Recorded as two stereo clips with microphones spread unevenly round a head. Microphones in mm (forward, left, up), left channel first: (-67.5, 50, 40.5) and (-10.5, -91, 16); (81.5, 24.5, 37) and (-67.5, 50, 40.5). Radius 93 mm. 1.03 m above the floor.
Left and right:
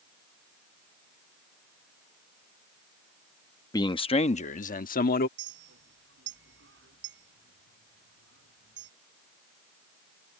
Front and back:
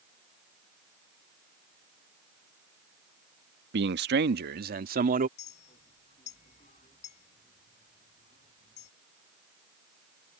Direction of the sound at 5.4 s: 65° right.